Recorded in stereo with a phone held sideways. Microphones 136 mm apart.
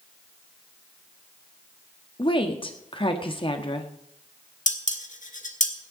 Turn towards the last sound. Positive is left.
turn(degrees=65)  # may be behind; listen again after turning